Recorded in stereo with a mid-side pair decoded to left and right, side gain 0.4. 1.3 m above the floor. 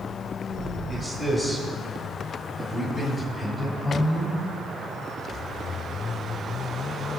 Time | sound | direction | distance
0.9 | a man speaking | 15° right | 6.5 m